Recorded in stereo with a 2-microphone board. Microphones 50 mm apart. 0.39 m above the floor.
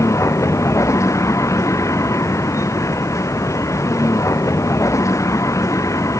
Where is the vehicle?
75° left (ahead or behind); by 6.2 s 85° left.